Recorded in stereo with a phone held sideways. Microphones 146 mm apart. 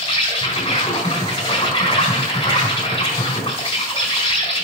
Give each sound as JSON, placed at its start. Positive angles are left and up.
{"t": 0.0, "sound": "an insect", "side_deg": 35, "distance_m": 3.5}